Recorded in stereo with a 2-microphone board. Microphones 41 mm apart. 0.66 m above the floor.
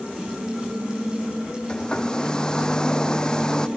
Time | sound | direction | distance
1.7 | a hair dryer | 20° left (ahead or behind) | ?